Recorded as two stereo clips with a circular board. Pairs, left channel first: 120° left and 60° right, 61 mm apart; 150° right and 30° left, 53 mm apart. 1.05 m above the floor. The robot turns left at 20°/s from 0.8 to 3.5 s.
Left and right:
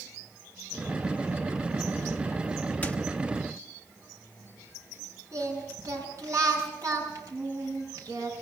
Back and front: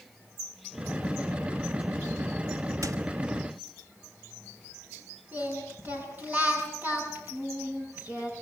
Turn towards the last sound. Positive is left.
turn(degrees=-25)